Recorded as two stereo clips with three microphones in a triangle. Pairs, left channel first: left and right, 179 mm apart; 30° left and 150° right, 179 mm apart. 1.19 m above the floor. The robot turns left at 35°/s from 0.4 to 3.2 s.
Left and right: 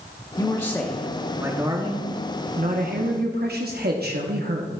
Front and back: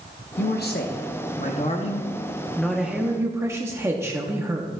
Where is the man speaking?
20° left, 0.9 m; by 4.7 s 75° right, 0.9 m.